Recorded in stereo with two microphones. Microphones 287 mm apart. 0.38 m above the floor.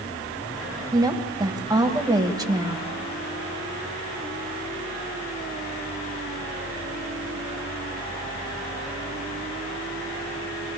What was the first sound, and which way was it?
A woman speaking, 10° right (ahead or behind).